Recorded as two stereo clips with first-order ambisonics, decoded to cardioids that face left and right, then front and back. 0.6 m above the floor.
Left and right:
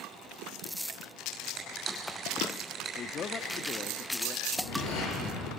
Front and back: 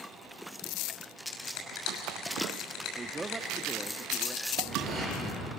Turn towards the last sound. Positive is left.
turn(degrees=95)